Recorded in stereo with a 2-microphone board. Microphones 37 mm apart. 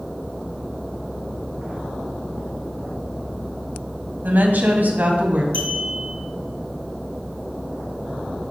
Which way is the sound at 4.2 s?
60° right (ahead or behind).